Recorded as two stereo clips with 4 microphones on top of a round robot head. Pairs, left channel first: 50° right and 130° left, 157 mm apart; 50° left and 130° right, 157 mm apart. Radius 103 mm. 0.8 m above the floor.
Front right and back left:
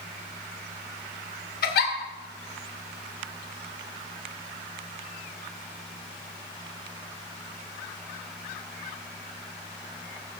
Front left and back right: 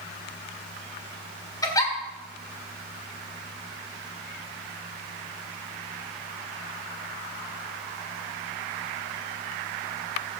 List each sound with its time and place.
1.6 s a giggle: 20° right, 2 m